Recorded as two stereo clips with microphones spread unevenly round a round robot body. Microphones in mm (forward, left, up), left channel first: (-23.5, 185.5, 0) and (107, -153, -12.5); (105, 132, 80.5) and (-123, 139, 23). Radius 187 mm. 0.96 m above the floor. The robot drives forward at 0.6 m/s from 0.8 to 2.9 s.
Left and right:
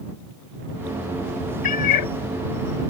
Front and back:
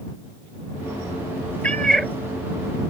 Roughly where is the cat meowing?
Left.